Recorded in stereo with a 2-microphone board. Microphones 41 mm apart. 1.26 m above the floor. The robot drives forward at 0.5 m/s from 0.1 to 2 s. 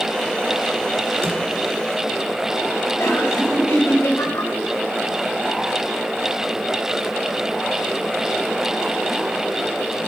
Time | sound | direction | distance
1.2 | a drawer | 75° right (ahead or behind) | 2.5 m
3.0 | laughter | 80° left | 5 m